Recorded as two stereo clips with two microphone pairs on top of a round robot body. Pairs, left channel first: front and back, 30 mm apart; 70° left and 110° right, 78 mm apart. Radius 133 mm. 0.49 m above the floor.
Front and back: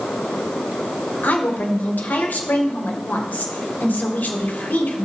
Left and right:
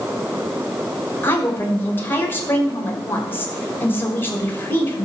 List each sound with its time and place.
1.2 s a woman speaking: 5° left, 2.5 m